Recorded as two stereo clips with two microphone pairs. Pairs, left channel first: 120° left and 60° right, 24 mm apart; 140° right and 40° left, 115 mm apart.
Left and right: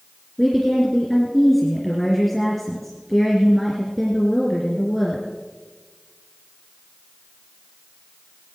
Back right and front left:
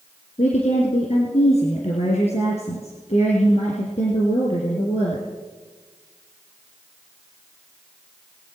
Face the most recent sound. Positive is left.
turn(degrees=-150)